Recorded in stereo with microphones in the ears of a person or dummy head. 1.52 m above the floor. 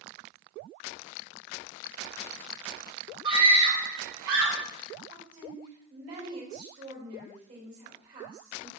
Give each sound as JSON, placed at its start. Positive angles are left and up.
{"t": 3.2, "sound": "a scream", "side_deg": -25, "distance_m": 2.5}
{"t": 5.1, "sound": "a woman speaking", "side_deg": -45, "distance_m": 3.5}